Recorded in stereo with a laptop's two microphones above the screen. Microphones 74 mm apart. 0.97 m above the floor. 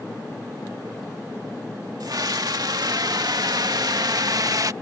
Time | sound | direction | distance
2.0 | a scream | 60° right (ahead or behind) | ?